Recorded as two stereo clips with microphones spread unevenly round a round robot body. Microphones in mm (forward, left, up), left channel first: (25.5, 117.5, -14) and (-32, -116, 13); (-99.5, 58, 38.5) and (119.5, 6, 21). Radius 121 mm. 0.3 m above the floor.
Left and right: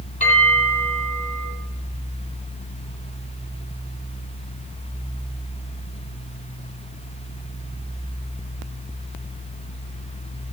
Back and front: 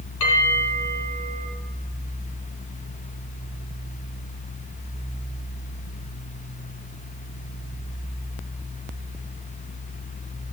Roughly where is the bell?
Behind left.